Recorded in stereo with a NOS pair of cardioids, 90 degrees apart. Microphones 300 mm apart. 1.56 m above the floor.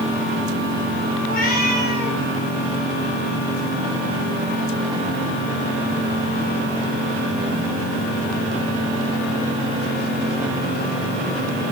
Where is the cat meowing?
30° left, 3.5 m.